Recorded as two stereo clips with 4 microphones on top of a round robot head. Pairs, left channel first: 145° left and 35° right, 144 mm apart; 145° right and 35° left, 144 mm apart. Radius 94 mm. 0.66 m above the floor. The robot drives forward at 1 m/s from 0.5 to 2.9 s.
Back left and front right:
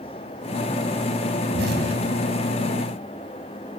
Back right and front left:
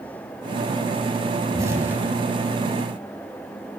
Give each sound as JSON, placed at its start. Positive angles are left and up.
{"t": 1.5, "sound": "an explosion", "azimuth_deg": -30, "distance_m": 1.7}